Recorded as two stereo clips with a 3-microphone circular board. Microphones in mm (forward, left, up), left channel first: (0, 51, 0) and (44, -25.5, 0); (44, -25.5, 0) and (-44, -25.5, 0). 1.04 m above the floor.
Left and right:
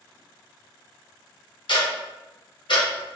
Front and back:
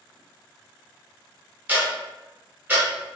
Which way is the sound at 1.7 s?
110° left.